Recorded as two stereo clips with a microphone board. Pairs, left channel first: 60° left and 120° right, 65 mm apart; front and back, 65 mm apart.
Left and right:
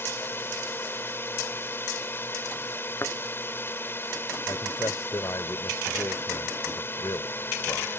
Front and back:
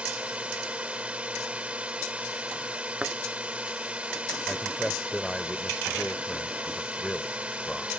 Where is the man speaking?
85° left.